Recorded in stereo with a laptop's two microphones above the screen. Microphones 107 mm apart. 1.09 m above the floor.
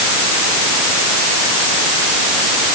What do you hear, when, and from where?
Only background noise.